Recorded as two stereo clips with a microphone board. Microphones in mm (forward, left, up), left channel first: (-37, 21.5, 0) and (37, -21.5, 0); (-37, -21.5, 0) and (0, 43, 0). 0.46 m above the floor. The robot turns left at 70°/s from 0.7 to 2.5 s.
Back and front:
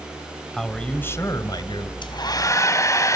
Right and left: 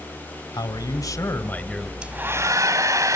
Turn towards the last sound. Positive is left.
turn(degrees=100)